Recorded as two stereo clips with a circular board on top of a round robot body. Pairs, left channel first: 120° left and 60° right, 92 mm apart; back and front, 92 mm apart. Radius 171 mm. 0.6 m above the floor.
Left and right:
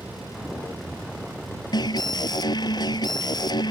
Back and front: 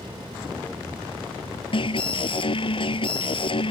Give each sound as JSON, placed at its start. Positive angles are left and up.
{"t": 1.7, "sound": "an alarm", "azimuth_deg": 160}